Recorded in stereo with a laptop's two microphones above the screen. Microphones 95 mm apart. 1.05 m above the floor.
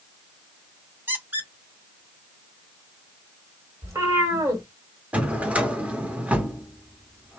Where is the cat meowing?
30° right (ahead or behind), 1.5 m.